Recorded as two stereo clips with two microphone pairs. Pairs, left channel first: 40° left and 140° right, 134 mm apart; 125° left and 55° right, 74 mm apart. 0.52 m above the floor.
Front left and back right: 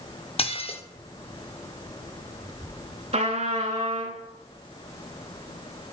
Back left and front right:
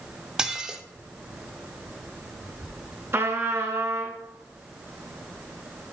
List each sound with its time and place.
0.4 s dishes clattering: 25° left, 0.5 m
3.1 s a trumpet: 110° right, 1.3 m